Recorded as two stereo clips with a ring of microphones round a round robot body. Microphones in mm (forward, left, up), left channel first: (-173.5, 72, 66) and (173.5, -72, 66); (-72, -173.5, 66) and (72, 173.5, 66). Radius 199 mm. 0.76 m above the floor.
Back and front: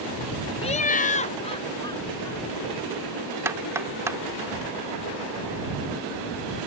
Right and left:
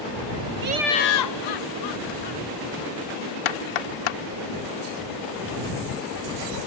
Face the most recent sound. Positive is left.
turn(degrees=-105)